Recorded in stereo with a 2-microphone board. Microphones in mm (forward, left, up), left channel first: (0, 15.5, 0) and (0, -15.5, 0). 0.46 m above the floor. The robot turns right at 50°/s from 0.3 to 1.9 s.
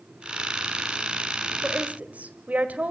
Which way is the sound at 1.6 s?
40° right (ahead or behind).